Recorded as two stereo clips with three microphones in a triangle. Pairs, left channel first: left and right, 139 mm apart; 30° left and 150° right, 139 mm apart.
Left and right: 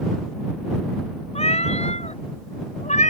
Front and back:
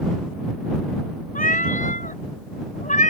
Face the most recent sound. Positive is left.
turn(degrees=55)